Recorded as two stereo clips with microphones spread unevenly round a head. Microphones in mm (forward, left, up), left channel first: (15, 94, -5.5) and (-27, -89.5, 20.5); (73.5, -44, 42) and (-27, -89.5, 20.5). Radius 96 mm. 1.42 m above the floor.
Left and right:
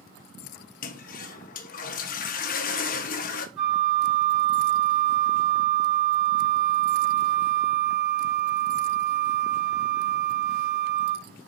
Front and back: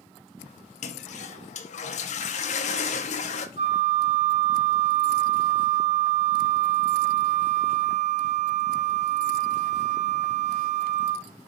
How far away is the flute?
About 2.5 m.